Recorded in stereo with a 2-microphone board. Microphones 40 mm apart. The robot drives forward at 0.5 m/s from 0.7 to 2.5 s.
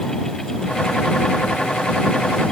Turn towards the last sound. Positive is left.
No sound to turn to.